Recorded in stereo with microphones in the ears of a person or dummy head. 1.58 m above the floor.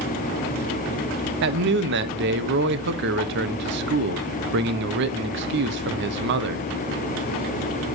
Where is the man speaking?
55° right (ahead or behind), 1.1 m.